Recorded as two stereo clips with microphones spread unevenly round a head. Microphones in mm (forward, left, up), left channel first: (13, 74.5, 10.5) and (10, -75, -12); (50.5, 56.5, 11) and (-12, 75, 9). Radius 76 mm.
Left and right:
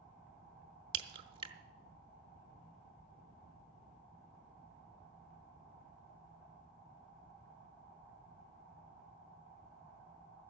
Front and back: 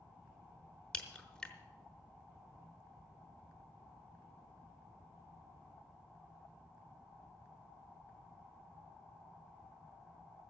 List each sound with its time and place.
0.9 s a crack: 75° right, 0.8 m